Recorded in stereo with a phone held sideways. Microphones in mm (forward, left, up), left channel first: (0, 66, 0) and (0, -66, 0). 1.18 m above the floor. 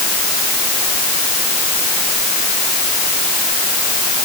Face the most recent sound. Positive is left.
No sound to turn to.